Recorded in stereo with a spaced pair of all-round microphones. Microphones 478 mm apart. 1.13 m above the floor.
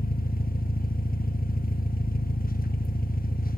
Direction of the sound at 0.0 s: 20° left (ahead or behind).